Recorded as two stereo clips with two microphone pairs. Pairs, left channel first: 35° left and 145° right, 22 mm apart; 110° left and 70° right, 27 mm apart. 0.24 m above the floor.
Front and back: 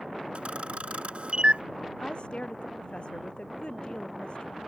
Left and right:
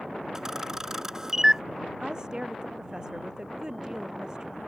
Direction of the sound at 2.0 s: 5° right.